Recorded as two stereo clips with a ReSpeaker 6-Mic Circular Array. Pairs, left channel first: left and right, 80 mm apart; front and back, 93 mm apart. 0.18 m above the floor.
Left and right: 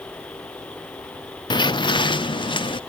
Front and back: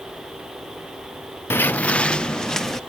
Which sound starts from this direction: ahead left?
Footsteps, at 1.5 s.